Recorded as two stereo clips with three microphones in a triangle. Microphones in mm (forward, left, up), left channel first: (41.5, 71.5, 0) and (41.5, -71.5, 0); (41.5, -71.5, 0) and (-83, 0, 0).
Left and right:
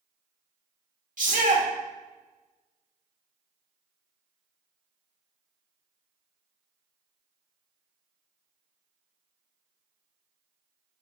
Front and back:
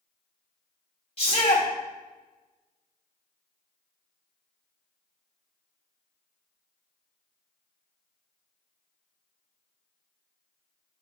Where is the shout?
75° right, 2 m.